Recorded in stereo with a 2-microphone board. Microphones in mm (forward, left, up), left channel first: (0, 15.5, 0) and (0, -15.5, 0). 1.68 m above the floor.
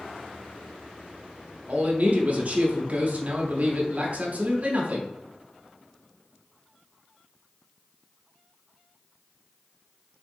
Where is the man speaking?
50° right (ahead or behind), 0.8 m.